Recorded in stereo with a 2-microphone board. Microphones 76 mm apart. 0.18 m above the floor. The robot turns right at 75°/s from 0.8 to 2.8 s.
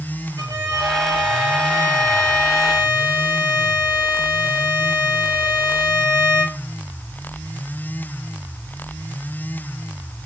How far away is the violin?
About 5 m.